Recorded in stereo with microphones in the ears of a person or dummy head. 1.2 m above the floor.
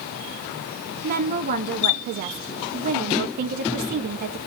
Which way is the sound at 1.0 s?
45° right (ahead or behind).